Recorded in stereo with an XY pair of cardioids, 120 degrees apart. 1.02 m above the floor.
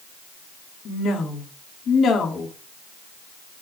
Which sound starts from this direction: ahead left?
A woman speaking, at 0.8 s.